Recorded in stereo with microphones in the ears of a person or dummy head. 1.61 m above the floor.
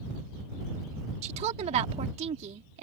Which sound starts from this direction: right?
A woman speaking, at 1.2 s.